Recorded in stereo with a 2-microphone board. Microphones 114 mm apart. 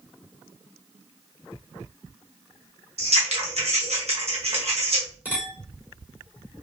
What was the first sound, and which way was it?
Scissors, 65° right (ahead or behind).